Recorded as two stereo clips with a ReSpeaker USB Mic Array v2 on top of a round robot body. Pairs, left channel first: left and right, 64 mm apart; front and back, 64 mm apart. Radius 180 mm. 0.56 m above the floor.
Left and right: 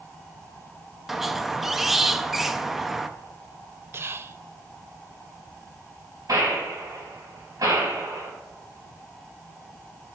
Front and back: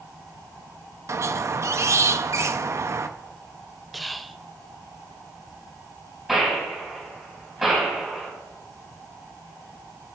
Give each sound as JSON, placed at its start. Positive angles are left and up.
{"t": 1.1, "sound": "a squeak", "azimuth_deg": -175, "distance_m": 0.6}
{"t": 3.9, "sound": "whispering", "azimuth_deg": -90, "distance_m": 0.6}
{"t": 6.3, "sound": "a gunshot", "azimuth_deg": -95, "distance_m": 3.0}